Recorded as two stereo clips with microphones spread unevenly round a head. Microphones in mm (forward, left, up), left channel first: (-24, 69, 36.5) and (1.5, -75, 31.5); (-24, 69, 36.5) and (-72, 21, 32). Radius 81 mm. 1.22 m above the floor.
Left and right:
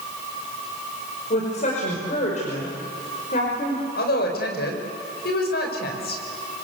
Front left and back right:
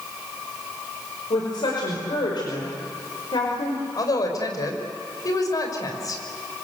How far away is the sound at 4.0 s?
About 5 m.